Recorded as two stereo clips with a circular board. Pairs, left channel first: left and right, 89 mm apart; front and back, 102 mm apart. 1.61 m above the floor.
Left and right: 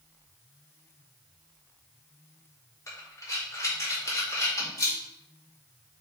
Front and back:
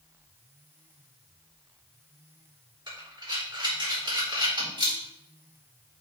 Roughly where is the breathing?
Behind left.